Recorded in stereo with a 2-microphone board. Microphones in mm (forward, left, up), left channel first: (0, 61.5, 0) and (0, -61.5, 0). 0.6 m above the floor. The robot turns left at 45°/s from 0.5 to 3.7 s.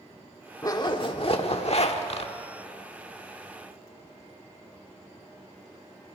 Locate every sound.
0.6 s a zipper: 145° left, 1.4 m; by 2.3 s 70° left, 1.4 m